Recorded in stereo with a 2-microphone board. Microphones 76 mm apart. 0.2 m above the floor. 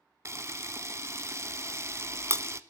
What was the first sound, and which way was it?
A camera shutter, 35° right (ahead or behind).